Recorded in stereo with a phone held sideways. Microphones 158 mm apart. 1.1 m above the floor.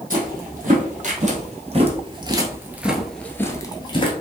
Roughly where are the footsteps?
Right.